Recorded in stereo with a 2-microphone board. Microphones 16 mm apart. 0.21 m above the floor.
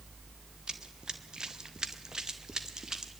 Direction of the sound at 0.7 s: 55° right (ahead or behind).